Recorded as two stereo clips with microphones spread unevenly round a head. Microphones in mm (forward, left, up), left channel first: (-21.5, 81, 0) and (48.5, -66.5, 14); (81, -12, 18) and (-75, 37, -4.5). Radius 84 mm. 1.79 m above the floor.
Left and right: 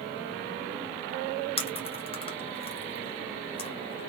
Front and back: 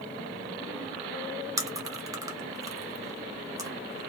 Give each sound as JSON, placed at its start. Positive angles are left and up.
{"t": 1.6, "sound": "chewing", "azimuth_deg": 95, "distance_m": 0.6}